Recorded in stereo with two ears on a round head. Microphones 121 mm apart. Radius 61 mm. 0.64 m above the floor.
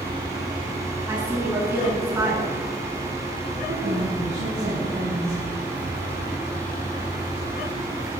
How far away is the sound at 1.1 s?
About 6.5 m.